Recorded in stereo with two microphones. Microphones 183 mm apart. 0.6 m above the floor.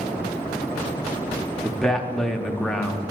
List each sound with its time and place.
1.6 s a man speaking: 5° left (ahead or behind), 0.6 m